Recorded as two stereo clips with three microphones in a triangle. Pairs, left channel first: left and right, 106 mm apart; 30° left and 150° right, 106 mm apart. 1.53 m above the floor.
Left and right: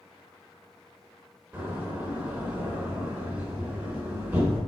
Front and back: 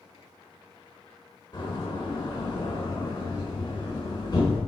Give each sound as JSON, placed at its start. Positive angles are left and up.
{"t": 1.5, "sound": "a door slam", "azimuth_deg": -15, "distance_m": 4.0}